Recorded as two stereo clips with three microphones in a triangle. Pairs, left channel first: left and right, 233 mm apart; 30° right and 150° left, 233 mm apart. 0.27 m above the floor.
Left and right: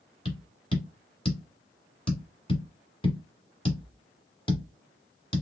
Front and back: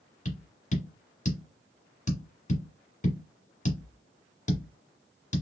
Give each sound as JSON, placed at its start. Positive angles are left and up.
{"t": 0.2, "sound": "tapping", "azimuth_deg": 25, "distance_m": 1.4}